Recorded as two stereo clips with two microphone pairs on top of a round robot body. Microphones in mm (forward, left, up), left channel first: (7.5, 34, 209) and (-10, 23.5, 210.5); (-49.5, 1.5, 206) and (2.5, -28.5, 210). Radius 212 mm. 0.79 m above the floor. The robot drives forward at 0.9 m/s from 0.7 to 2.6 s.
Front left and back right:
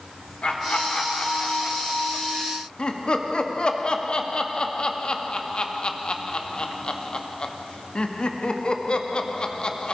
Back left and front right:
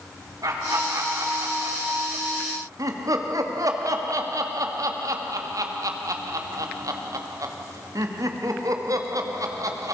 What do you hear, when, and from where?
0.4 s laughter: 10° right, 4 m; by 9.9 s 15° right, 2.5 m